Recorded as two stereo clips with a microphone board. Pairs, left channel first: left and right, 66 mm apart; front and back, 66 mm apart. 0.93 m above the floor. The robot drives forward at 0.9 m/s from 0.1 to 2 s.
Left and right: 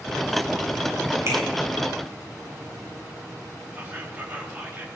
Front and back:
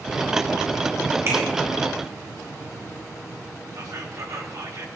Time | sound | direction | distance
1.3 | a finger snap | 135° right | 6 m
3.7 | whispering | 150° right | 1.8 m